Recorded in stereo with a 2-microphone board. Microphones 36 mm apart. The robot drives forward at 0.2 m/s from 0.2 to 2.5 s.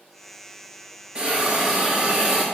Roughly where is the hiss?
Right.